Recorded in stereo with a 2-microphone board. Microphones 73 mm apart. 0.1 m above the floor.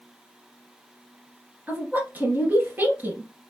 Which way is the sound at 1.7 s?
25° right (ahead or behind).